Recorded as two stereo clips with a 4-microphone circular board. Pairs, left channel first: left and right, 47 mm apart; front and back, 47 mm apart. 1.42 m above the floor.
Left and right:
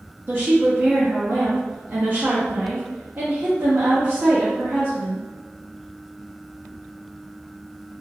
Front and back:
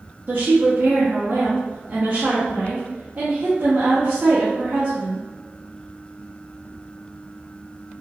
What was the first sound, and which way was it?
A woman speaking, 130° right.